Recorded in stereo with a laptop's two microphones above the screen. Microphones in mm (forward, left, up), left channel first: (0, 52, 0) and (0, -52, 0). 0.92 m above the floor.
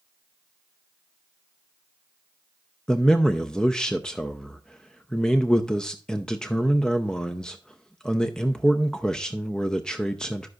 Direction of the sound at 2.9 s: 10° left (ahead or behind).